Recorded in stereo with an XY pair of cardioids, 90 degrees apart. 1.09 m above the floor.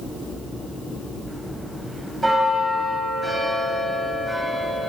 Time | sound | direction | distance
1.3 | a bell | 20° right | 8 m